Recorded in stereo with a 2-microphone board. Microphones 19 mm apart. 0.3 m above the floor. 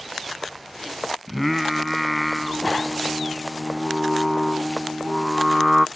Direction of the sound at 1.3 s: Centre (ahead or behind).